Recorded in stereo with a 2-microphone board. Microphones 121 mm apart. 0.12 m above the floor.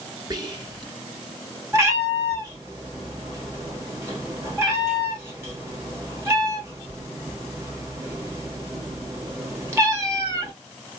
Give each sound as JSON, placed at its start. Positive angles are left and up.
{"t": 0.3, "sound": "whispering", "side_deg": -35, "distance_m": 1.3}
{"t": 1.7, "sound": "a cat meowing", "side_deg": -25, "distance_m": 1.3}